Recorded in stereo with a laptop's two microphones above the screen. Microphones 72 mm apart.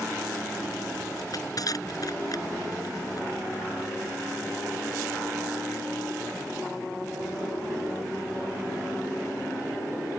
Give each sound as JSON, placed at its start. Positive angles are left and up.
{"t": 1.2, "sound": "crushing", "side_deg": 55}